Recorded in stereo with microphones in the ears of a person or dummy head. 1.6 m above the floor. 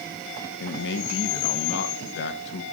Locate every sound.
0.6 s a man speaking: 60° left (ahead or behind), 1.1 m